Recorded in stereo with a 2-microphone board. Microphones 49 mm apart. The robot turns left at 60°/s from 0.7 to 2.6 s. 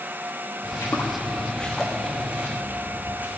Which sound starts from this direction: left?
Footsteps, at 0.6 s.